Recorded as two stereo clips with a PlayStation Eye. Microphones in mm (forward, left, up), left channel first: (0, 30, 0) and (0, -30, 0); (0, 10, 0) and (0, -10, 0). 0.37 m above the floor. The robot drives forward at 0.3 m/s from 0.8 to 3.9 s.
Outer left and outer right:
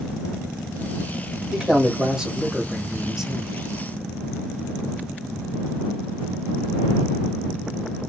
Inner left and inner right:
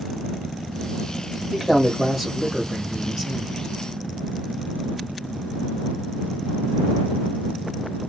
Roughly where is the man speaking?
Centre.